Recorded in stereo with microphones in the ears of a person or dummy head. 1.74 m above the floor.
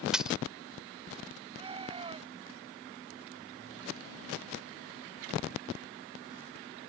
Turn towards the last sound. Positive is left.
turn(degrees=-25)  # may be behind; listen again after turning